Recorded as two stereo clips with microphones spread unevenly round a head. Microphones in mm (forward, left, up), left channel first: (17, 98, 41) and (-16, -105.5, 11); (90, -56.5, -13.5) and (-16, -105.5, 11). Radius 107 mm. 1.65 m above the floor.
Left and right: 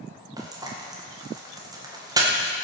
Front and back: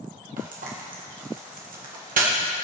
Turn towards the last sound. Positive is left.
turn(degrees=-175)